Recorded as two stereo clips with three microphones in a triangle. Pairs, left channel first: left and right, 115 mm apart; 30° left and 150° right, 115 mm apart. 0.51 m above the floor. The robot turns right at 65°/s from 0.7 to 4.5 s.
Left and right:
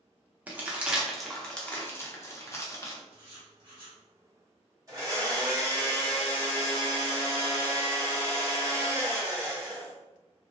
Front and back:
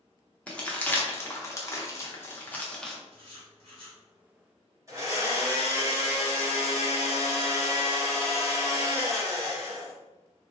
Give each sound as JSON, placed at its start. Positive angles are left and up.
{"t": 0.5, "sound": "crumpling", "azimuth_deg": -35, "distance_m": 0.6}
{"t": 3.1, "sound": "writing", "azimuth_deg": -170, "distance_m": 1.3}
{"t": 4.9, "sound": "a blender", "azimuth_deg": -115, "distance_m": 1.1}